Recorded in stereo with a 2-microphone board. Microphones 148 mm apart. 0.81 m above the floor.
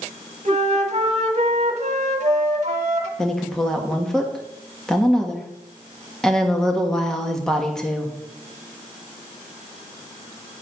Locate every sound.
0.5 s a flute: 55° right (ahead or behind), 1.2 m
3.2 s a woman speaking: 5° left (ahead or behind), 1.3 m